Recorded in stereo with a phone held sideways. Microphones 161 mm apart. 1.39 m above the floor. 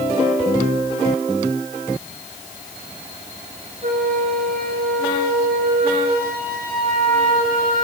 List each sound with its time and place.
3.8 s a flute: 65° right (ahead or behind), 7.5 m